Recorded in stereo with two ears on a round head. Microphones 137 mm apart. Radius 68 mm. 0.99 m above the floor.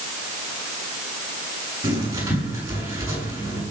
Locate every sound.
1.8 s writing: 20° right (ahead or behind), 9 m